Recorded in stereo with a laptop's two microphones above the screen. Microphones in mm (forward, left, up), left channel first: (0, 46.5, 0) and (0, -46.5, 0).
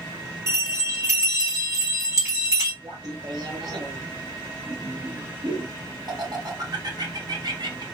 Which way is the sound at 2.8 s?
50° right (ahead or behind).